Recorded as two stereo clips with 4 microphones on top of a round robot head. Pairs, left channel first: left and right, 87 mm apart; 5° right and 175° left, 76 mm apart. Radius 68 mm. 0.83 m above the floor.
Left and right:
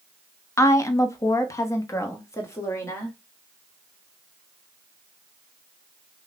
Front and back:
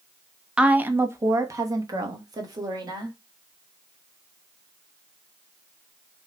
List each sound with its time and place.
0.6 s a woman speaking: 110° left, 0.6 m; by 3.1 s 150° left, 1.8 m